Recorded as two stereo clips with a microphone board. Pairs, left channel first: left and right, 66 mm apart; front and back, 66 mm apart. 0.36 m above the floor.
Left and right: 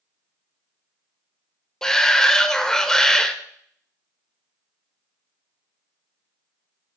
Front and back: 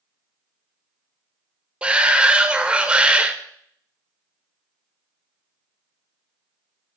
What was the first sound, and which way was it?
A shout, 155° left.